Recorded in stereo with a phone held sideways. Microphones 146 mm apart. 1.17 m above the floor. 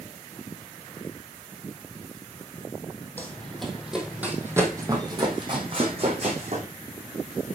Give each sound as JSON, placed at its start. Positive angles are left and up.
{"t": 3.2, "sound": "running footsteps", "side_deg": 10, "distance_m": 2.0}